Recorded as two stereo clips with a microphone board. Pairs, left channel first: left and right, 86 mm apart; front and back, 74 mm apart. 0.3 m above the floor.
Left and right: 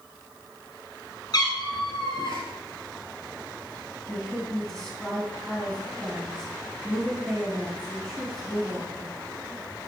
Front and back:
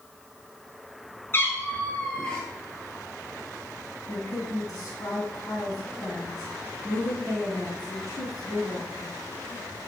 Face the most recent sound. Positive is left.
turn(degrees=10)